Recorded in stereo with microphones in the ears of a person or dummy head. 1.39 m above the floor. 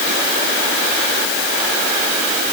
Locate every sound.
Only background noise.